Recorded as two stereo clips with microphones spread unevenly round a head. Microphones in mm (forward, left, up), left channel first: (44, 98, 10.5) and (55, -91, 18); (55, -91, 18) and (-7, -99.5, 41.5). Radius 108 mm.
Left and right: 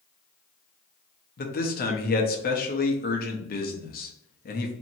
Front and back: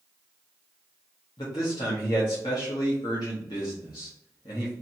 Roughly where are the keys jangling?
I don't hear keys jangling.